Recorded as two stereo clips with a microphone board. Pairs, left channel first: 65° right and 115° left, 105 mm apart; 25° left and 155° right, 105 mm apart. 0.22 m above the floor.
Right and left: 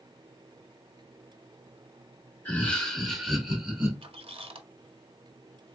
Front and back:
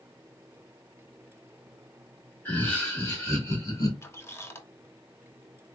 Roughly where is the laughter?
Ahead.